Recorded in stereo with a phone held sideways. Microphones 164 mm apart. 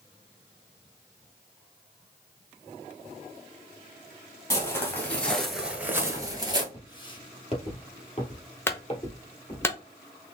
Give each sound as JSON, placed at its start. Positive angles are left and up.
{"t": 4.5, "sound": "footsteps", "side_deg": 15, "distance_m": 1.9}
{"t": 6.7, "sound": "footsteps", "side_deg": 25, "distance_m": 1.4}
{"t": 8.7, "sound": "a clunk", "side_deg": 15, "distance_m": 0.8}